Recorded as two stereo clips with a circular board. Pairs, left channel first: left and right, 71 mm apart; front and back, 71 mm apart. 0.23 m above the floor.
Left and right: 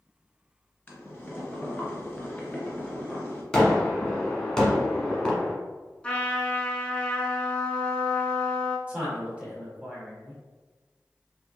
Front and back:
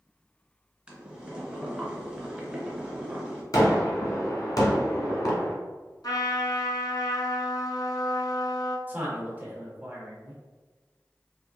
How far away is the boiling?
About 1.3 m.